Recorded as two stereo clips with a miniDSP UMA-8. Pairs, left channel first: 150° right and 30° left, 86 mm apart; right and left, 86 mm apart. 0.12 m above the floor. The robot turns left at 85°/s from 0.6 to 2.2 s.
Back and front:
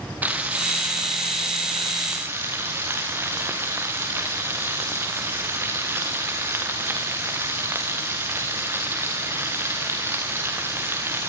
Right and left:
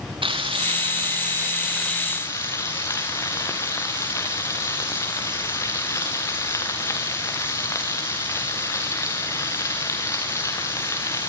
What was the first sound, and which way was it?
Frying, 100° left.